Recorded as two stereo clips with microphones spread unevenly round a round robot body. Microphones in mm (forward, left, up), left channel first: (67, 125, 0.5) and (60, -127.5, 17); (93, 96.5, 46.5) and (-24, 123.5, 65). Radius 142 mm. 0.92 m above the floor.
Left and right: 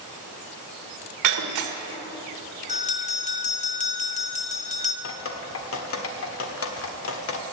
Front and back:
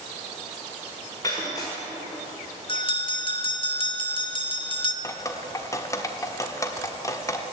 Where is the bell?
30° left, 1.3 m.